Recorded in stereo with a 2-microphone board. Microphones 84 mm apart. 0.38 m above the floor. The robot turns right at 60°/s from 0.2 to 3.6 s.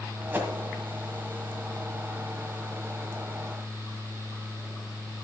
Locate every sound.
0.3 s a whoosh: 20° right (ahead or behind), 1.7 m; by 0.5 s 35° right (ahead or behind), 1.7 m